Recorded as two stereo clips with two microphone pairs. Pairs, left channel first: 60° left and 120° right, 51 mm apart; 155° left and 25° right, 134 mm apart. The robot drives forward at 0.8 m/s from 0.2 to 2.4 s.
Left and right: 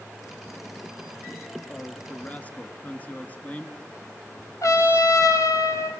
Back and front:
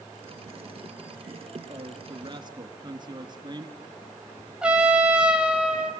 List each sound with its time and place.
1.7 s a man speaking: 10° left, 2 m
4.6 s a trumpet: 60° left, 2.0 m